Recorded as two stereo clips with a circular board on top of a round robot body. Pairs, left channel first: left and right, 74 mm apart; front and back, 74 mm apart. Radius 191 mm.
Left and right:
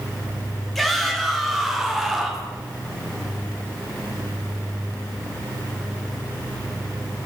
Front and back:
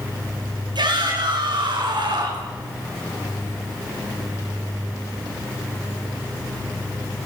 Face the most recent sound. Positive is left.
turn(degrees=-175)